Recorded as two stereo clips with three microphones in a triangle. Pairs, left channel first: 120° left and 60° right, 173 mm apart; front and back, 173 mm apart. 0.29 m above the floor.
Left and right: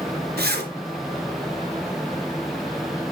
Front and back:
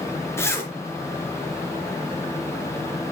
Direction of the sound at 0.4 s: 75° right.